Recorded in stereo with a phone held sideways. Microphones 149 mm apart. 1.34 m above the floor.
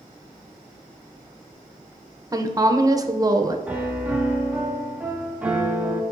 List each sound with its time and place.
2.3 s a woman speaking: 25° right (ahead or behind), 0.7 m
3.7 s a piano: 10° right (ahead or behind), 1.0 m